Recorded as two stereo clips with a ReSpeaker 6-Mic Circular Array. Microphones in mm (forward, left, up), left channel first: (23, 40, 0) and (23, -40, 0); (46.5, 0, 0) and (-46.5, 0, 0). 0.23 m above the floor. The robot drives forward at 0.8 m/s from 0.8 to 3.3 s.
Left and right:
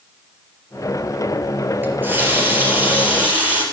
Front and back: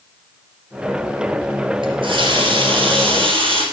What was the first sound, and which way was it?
A running tap, 155° right.